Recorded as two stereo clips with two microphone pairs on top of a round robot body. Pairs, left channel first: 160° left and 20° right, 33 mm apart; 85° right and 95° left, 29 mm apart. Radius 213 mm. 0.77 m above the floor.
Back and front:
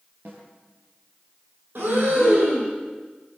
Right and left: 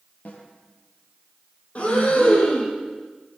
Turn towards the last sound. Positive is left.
turn(degrees=-35)